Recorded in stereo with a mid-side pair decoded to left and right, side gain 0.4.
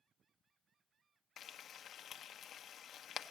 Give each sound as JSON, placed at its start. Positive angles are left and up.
{"t": 1.4, "sound": "frying", "azimuth_deg": 60, "distance_m": 0.6}